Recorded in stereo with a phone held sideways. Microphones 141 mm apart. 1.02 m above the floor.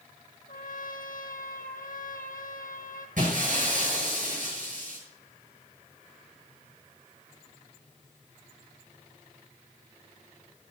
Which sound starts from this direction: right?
Breaking glass, at 3.2 s.